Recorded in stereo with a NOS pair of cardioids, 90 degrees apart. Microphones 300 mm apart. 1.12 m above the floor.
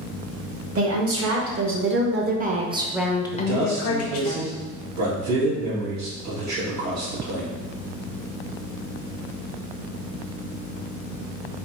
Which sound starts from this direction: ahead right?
A woman speaking, at 0.8 s.